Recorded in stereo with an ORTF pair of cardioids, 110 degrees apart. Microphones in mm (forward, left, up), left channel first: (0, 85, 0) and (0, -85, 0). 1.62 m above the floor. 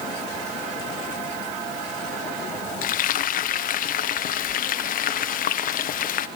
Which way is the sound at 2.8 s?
55° left.